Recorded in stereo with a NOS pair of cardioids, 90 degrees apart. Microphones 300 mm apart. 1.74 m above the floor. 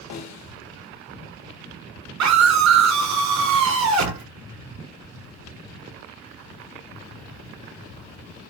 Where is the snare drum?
65° left, 1.1 m.